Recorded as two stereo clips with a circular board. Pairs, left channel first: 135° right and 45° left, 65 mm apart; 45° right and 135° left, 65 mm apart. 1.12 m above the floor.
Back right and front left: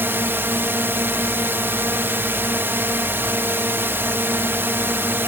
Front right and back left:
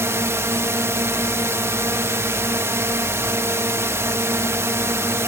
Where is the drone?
95° left.